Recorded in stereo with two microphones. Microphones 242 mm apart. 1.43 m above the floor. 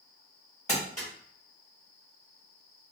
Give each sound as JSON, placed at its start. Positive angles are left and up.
{"t": 0.7, "sound": "crumpling", "side_deg": 30, "distance_m": 2.5}